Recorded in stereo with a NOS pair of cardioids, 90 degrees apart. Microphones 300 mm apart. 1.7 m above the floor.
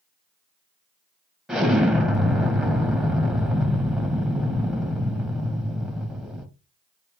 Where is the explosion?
Straight ahead, 1.9 m.